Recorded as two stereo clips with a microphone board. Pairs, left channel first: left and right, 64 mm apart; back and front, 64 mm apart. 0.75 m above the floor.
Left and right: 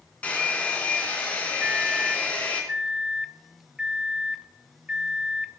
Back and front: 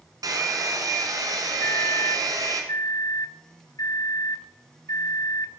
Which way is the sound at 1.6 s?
165° right.